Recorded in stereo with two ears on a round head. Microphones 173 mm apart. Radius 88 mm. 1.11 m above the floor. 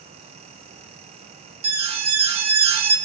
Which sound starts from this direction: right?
An alarm, at 1.6 s.